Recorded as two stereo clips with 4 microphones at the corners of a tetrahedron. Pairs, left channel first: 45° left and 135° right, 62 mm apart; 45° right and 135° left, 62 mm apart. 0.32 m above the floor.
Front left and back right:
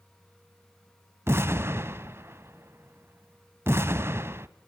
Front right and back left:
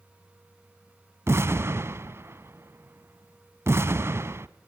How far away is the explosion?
About 0.9 m.